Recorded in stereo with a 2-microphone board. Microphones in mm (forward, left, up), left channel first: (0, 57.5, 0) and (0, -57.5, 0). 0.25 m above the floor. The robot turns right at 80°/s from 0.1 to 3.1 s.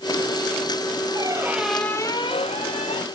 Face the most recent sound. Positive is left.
turn(degrees=115)